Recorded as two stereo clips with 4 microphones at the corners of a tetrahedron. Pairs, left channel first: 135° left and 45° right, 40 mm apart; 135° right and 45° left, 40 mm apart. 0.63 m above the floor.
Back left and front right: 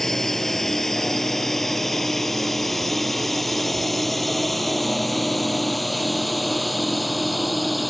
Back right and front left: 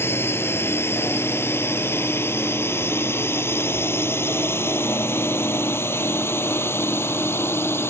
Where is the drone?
140° right; by 7.9 s 135° right.